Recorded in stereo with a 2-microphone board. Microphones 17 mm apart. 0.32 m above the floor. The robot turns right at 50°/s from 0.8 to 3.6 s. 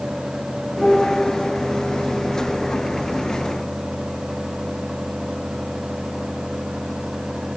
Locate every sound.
0.8 s a piano: 55° left (ahead or behind), 3 m; by 1.3 s 75° left (ahead or behind), 3 m